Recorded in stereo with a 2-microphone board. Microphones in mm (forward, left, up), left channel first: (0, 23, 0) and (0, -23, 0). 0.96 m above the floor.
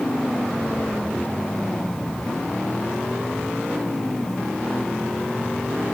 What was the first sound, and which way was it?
Only background noise.